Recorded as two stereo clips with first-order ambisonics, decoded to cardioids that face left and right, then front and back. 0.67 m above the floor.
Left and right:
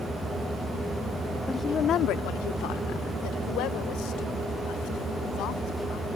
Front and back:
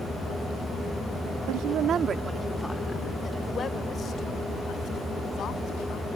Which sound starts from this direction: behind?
A woman speaking, at 1.5 s.